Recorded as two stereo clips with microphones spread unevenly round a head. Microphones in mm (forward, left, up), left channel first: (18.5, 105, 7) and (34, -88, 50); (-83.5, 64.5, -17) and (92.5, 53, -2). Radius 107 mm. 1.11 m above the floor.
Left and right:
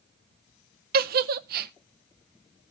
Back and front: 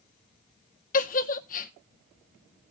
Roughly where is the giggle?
Behind right.